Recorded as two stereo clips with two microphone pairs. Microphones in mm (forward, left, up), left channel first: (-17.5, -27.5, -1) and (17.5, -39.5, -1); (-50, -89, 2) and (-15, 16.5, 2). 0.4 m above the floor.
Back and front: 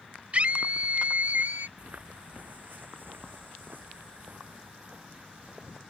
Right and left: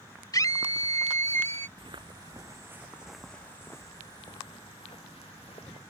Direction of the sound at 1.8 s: 30° left.